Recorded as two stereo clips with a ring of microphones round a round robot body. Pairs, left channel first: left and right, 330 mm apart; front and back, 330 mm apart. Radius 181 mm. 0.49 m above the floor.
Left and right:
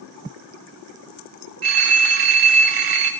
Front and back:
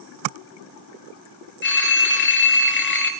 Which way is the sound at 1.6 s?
55° right.